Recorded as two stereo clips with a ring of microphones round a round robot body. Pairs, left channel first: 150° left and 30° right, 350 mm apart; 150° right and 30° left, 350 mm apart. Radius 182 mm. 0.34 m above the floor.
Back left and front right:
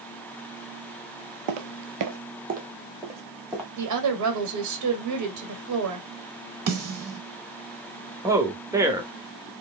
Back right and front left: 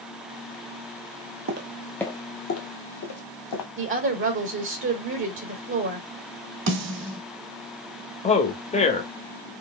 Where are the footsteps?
20° right, 0.6 m; by 3.7 s 120° right, 1.4 m.